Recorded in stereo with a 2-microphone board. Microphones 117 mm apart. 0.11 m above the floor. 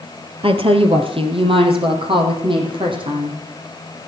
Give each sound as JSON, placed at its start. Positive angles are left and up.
{"t": 0.4, "sound": "a woman speaking", "side_deg": -50, "distance_m": 2.0}